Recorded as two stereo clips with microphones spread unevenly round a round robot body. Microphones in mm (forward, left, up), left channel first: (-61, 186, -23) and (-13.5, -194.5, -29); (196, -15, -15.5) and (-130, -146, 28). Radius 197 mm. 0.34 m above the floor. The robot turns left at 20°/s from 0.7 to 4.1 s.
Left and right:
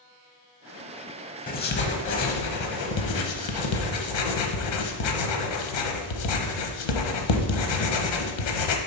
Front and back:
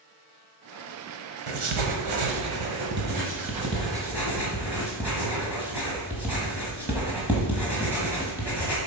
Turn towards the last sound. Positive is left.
turn(degrees=115)